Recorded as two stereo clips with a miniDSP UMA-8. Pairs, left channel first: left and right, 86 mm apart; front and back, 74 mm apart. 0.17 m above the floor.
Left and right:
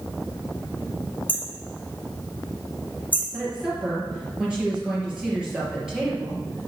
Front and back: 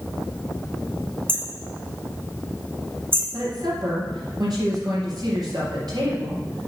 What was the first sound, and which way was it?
Hammering, 145° left.